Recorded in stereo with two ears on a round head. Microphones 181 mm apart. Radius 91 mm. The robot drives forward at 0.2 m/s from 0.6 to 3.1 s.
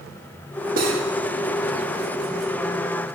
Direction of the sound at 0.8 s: 45° right (ahead or behind).